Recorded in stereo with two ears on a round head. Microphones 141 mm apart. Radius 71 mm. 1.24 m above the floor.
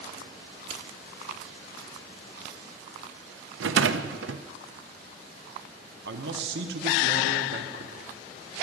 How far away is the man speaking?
About 1.2 m.